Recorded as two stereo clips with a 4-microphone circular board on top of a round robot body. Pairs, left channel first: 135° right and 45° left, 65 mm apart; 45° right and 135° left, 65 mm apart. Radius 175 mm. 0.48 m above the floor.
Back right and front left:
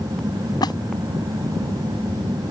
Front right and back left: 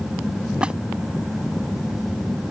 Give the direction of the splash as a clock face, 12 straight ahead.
5 o'clock.